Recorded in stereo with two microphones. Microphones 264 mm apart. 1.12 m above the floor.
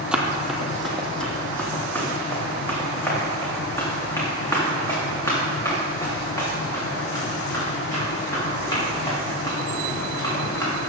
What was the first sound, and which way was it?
Running footsteps, 5° right (ahead or behind).